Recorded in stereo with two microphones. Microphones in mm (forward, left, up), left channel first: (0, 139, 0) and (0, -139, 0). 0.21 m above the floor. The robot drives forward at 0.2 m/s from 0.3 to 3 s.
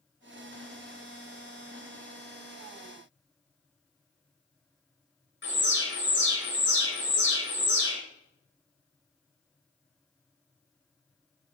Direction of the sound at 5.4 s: 45° left (ahead or behind).